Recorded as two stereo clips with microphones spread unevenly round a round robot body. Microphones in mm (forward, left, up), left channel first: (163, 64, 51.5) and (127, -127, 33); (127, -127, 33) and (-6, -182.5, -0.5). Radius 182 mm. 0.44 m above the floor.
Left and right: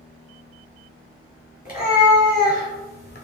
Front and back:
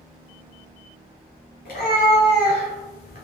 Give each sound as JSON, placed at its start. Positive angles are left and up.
{"t": 1.6, "sound": "a cat meowing", "azimuth_deg": 35, "distance_m": 1.9}